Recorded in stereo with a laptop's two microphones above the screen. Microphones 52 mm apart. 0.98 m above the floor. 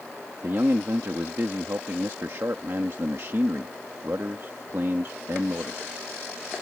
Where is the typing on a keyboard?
No typing on a keyboard in this recording.